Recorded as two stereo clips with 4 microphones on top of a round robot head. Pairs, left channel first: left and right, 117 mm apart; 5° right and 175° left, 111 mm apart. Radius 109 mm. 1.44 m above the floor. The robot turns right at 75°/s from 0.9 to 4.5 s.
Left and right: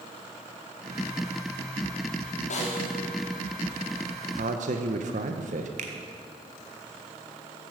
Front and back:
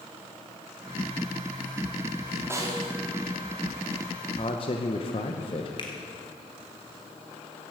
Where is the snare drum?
105° left, 2.5 m; by 3.0 s 145° left, 2.5 m.